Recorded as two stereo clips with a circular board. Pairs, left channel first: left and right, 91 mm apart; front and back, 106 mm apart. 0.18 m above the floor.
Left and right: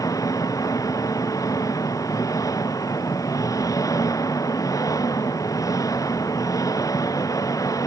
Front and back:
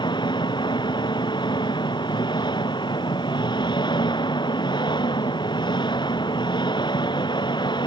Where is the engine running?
40° left.